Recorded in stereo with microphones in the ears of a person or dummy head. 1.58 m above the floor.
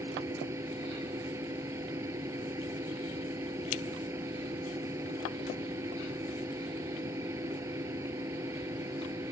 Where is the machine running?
20° right (ahead or behind).